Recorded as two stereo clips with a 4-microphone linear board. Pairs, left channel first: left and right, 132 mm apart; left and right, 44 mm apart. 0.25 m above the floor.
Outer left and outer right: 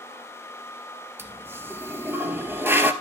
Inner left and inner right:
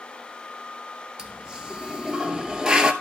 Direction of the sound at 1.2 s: 15° right (ahead or behind).